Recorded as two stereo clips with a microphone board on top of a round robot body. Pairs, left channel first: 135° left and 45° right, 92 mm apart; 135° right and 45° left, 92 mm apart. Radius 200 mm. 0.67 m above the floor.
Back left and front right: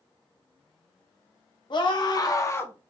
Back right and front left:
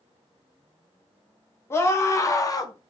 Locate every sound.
1.7 s a scream: 165° left, 1.5 m; by 2.9 s 150° right, 0.9 m